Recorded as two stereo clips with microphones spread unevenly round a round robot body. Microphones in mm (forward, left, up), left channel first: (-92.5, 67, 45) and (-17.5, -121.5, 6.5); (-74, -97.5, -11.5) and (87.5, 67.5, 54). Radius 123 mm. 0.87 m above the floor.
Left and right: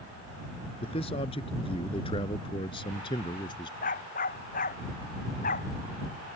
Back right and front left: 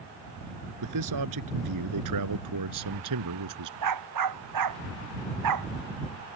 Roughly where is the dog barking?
Ahead left.